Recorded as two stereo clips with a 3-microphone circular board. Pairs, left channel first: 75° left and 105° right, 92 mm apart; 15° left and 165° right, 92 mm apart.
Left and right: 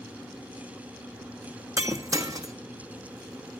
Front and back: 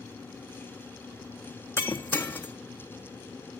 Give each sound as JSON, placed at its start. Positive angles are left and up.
{"t": 1.8, "sound": "breaking glass", "azimuth_deg": -55, "distance_m": 0.9}